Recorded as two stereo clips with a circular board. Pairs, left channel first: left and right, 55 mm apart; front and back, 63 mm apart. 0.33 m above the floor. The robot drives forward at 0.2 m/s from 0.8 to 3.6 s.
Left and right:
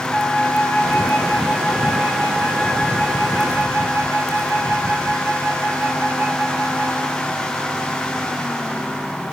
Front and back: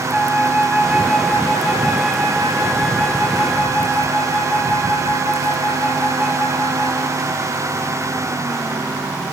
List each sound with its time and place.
0.1 s a flute: 75° left, 1.9 m; by 7.3 s 95° left, 1.8 m